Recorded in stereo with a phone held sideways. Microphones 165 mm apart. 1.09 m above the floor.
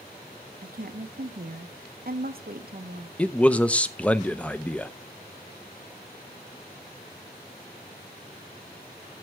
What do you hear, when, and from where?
0.6 s a woman speaking: 65° right (ahead or behind), 1.0 m
3.2 s a man speaking: 10° left (ahead or behind), 0.6 m